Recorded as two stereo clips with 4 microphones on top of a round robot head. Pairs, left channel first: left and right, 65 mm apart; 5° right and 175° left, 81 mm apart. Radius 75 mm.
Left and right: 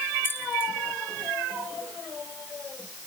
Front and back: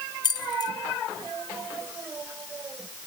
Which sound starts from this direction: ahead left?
Keys jangling, at 0.2 s.